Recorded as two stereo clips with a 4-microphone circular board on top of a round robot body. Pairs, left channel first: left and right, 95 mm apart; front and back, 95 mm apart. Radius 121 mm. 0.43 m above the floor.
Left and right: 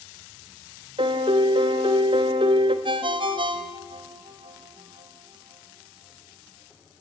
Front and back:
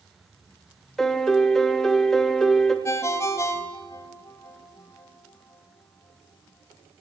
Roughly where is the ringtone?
Ahead right.